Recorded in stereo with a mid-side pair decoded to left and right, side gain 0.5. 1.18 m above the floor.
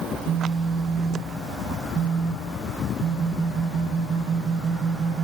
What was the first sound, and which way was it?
A phone buzzing, 60° right.